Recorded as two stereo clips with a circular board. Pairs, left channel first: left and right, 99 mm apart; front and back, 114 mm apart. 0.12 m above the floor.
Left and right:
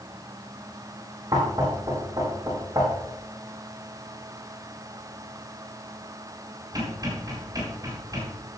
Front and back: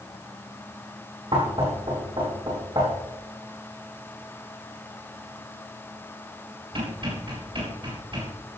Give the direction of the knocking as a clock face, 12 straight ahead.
5 o'clock.